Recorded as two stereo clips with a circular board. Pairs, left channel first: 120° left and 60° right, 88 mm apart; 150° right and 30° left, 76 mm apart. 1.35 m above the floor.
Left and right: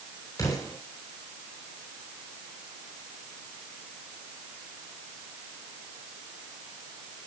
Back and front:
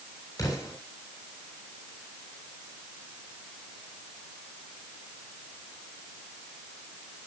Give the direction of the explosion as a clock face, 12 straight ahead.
6 o'clock.